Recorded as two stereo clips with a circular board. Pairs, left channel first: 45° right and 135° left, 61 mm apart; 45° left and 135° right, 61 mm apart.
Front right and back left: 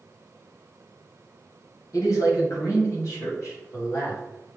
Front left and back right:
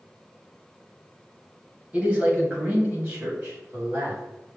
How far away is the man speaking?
About 1.7 m.